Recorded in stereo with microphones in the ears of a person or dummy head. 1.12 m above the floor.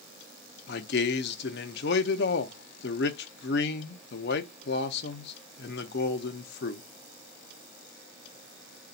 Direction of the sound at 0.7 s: 50° left (ahead or behind).